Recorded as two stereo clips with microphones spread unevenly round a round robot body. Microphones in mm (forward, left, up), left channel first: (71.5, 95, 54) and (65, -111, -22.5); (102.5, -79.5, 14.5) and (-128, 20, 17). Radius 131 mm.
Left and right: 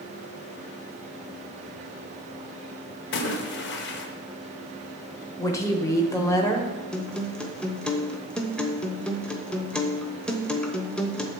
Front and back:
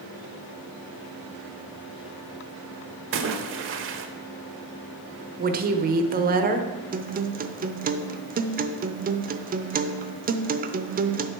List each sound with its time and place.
3.1 s a splash: 135° left, 1.0 m
5.4 s a woman speaking: 175° right, 1.0 m
6.9 s a guitar: 165° right, 0.7 m